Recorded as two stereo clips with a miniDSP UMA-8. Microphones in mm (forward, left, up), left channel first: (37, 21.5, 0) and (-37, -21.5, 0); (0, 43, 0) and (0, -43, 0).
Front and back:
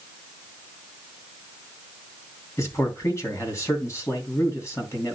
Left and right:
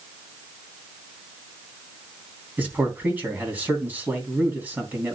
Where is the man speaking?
20° right, 3 m.